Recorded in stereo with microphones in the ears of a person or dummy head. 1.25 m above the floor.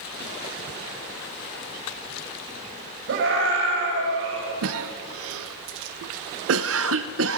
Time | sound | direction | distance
3.1 | a scream | 70° right (ahead or behind) | 5.5 m
4.6 | a cough | 75° right (ahead or behind) | 0.6 m